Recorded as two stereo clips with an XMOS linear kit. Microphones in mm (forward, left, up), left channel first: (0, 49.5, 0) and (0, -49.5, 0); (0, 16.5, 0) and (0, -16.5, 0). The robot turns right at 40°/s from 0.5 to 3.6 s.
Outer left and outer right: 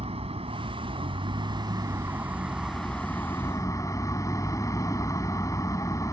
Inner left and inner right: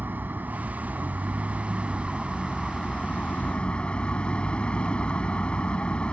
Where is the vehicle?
90° right; by 6.1 s 35° left.